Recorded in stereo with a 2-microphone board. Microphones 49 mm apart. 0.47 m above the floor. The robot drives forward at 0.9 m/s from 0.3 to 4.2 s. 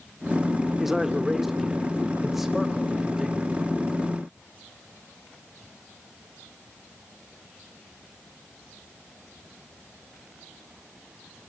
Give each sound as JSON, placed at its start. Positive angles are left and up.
{"t": 0.8, "sound": "a man speaking", "side_deg": -5, "distance_m": 1.2}